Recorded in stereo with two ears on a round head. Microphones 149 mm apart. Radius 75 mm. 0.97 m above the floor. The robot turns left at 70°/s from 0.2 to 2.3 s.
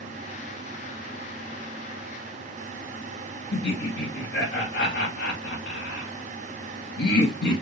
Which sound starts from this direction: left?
Laughter, at 3.5 s.